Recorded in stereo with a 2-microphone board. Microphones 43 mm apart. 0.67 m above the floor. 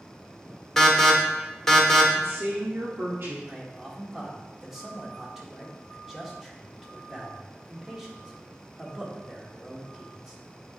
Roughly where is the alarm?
Centre.